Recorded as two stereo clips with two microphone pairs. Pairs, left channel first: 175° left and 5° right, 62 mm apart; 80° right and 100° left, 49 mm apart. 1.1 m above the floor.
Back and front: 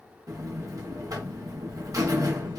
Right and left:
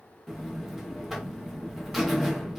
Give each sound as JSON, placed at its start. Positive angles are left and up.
{"t": 0.3, "sound": "a buzzer", "azimuth_deg": 10, "distance_m": 0.7}